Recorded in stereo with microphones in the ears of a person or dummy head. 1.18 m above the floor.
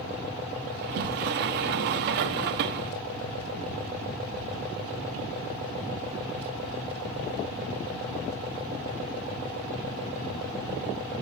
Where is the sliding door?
55° right (ahead or behind), 0.8 m.